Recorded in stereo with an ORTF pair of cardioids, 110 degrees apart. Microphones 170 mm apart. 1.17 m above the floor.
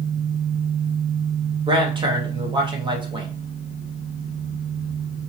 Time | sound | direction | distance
1.7 | a man speaking | 30° right | 1.3 m